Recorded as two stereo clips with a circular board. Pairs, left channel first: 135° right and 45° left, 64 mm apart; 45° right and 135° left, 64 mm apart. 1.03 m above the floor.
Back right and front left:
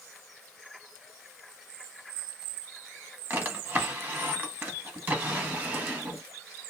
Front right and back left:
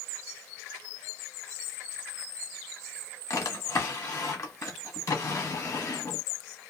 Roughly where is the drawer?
Ahead.